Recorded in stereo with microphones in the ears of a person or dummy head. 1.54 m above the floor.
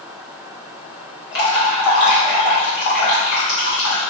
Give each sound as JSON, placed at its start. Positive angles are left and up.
{"t": 1.3, "sound": "dripping", "side_deg": 70, "distance_m": 1.5}